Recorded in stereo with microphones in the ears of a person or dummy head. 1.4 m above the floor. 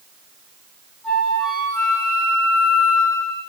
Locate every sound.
1.0 s a flute: centre (ahead or behind), 1.6 m